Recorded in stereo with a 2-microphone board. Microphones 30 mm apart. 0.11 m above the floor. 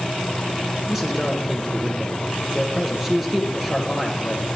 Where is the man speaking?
10° right (ahead or behind), 1.5 m.